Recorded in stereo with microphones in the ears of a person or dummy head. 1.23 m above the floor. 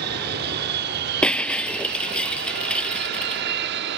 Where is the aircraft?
60° right (ahead or behind); by 4.0 s 65° right (ahead or behind).